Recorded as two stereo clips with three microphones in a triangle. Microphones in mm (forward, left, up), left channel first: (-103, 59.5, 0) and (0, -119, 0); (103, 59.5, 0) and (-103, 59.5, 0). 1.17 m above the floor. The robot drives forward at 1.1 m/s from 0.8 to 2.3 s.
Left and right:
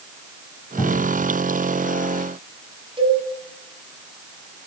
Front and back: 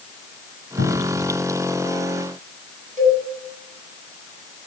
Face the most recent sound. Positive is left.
turn(degrees=-125)